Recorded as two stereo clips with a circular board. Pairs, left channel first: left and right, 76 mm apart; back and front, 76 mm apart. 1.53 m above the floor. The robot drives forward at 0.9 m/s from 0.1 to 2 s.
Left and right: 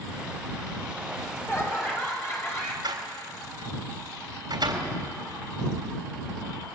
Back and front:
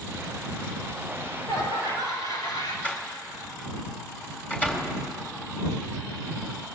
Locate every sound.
1.1 s laughter: 145° left, 6 m; by 2.7 s 150° left, 7 m
2.8 s a door slam: 115° right, 3.5 m